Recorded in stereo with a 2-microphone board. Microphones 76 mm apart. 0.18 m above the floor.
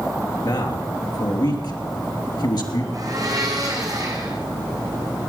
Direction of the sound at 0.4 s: 65° left (ahead or behind).